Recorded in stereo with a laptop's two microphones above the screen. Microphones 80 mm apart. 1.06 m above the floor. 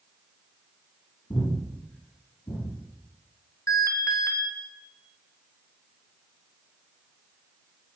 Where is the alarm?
35° left (ahead or behind), 1.9 m.